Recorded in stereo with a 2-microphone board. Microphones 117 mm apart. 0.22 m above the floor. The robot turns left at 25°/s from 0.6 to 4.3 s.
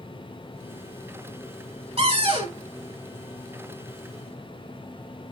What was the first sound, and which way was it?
A cupboard door, 55° right (ahead or behind).